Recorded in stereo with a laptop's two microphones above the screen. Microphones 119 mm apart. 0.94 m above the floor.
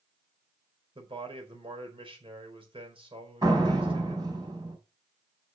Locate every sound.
0.9 s a man speaking: 45° right (ahead or behind), 4.5 m
3.4 s a door slam: 35° right (ahead or behind), 4.5 m